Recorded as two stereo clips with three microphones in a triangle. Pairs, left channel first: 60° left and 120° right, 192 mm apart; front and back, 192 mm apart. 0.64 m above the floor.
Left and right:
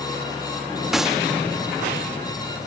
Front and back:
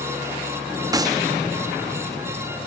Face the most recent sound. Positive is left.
turn(degrees=155)